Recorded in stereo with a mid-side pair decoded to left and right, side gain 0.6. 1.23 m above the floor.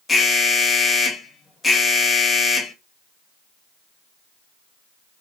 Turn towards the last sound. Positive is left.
turn(degrees=25)